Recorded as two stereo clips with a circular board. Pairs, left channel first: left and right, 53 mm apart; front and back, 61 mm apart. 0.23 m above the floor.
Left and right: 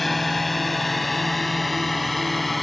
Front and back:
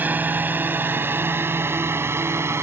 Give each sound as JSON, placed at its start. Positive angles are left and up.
{"t": 0.0, "sound": "a drone", "azimuth_deg": 175}